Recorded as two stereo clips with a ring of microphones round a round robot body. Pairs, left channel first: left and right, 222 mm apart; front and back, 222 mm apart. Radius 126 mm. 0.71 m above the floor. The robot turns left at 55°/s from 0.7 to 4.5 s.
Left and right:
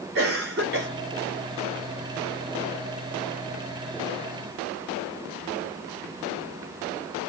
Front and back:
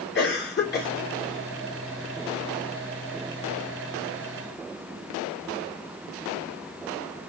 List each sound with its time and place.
0.1 s a cough: 40° right, 2.5 m; by 0.9 s 50° right, 2.5 m